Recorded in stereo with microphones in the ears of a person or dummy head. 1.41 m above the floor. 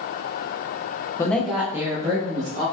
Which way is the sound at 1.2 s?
15° left (ahead or behind).